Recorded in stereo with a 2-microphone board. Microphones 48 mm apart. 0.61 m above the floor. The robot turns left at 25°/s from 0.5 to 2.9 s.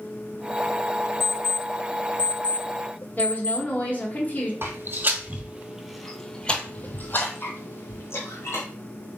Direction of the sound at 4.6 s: 50° right (ahead or behind).